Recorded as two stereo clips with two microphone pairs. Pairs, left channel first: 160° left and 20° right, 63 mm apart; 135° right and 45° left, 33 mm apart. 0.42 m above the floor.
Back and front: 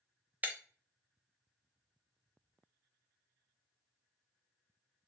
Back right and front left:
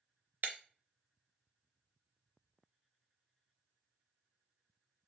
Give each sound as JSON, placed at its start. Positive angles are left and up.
{"t": 0.4, "sound": "breaking glass", "azimuth_deg": 40, "distance_m": 0.6}